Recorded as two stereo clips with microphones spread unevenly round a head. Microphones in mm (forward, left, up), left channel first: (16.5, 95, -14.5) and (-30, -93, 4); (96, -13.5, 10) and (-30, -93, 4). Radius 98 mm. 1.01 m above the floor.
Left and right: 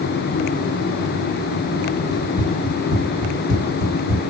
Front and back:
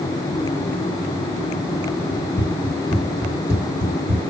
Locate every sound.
2.1 s running footsteps: 75° left, 1.3 m; by 4.2 s 165° left, 1.5 m